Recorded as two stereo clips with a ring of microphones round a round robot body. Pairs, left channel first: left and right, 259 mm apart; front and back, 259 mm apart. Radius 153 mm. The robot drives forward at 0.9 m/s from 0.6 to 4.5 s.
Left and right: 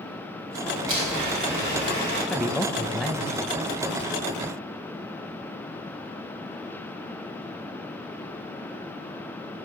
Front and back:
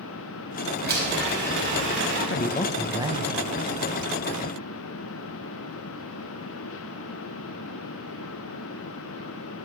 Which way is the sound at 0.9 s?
130° right.